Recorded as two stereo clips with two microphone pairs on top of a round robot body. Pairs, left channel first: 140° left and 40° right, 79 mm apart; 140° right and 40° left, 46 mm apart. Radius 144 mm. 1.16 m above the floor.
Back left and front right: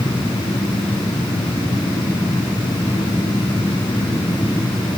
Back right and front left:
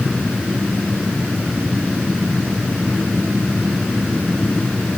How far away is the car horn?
I don't hear a car horn.